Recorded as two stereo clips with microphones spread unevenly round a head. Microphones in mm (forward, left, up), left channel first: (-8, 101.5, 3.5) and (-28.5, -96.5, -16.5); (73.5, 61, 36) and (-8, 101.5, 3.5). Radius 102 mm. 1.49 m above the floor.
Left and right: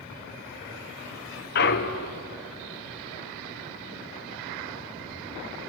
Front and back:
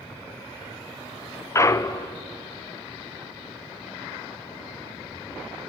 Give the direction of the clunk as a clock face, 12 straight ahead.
11 o'clock.